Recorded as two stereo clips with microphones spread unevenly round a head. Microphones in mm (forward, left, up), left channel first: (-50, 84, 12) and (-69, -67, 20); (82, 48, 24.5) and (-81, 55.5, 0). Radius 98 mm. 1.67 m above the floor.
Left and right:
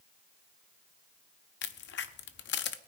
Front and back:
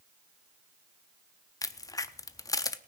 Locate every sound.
1.6 s a crack: 65° left, 0.6 m